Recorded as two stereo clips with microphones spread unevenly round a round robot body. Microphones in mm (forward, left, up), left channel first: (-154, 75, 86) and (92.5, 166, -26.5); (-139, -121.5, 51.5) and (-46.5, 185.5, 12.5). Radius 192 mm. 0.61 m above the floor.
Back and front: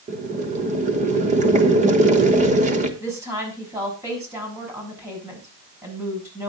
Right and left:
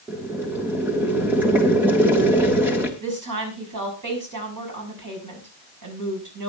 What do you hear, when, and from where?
0.1 s boiling: 5° right, 1.2 m
3.0 s a woman speaking: 95° left, 6 m